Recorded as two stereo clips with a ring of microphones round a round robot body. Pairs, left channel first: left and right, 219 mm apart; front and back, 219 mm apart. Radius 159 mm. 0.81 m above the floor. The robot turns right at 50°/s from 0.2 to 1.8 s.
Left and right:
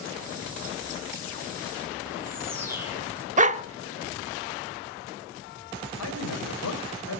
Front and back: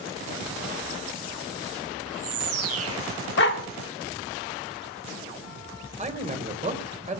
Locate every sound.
2.1 s a bird: 170° right, 1.5 m
3.4 s a dog barking: 40° right, 0.8 m
6.0 s a man speaking: 125° left, 3.5 m